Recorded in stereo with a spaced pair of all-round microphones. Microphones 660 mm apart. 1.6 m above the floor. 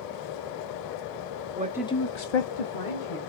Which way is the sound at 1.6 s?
15° right (ahead or behind).